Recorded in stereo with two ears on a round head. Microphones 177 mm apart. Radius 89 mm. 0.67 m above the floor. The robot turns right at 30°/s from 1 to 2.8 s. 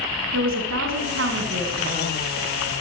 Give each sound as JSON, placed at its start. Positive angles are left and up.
{"t": 0.3, "sound": "a woman speaking", "azimuth_deg": -75, "distance_m": 6.5}